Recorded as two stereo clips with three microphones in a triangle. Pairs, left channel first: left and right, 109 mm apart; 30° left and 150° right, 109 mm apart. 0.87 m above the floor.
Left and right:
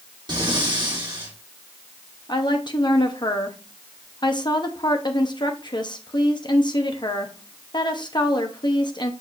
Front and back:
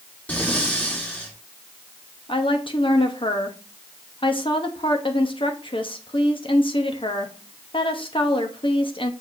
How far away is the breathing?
About 1.9 m.